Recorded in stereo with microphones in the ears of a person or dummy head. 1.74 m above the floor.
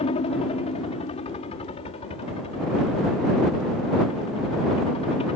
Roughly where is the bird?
No bird in this recording.